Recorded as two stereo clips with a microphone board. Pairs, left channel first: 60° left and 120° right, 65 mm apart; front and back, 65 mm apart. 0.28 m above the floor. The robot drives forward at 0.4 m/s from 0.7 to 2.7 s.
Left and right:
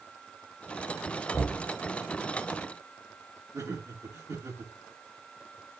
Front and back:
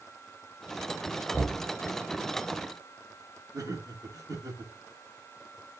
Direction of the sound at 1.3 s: 90° left.